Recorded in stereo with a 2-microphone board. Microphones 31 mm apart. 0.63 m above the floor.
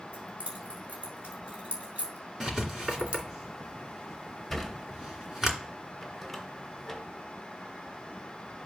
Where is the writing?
10° right (ahead or behind), 2.5 m.